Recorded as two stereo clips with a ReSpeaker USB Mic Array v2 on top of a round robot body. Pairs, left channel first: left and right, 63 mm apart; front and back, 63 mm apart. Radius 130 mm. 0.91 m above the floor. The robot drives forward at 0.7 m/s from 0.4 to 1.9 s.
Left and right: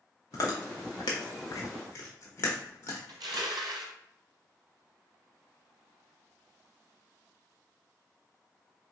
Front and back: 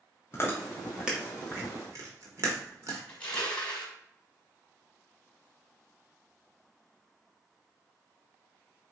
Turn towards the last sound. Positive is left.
turn(degrees=-70)